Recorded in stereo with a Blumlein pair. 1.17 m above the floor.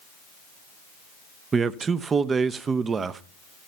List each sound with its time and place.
1.5 s a man speaking: 20° right, 0.7 m